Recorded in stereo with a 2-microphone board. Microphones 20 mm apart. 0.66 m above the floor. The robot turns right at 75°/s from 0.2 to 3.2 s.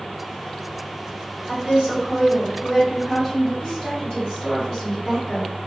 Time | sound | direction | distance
1.5 | a woman speaking | 120° right | 1.6 m
3.6 | a woman speaking | 30° left (ahead or behind) | 1.7 m